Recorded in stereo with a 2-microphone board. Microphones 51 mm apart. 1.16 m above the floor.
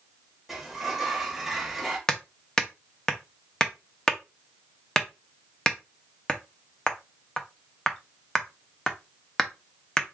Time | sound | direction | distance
0.5 | a sliding door | 5° right (ahead or behind) | 1.2 m
2.1 | hammering | 10° left (ahead or behind) | 0.7 m